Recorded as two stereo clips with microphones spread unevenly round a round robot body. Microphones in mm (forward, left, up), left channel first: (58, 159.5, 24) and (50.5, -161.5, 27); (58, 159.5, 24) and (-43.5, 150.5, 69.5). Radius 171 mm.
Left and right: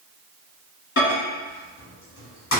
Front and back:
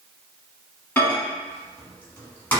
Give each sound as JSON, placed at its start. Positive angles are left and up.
{"t": 1.0, "sound": "a microwave", "azimuth_deg": 50, "distance_m": 1.1}